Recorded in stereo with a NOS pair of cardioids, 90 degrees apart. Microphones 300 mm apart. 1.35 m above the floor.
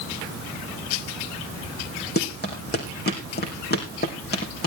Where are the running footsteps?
30° left, 4.5 m.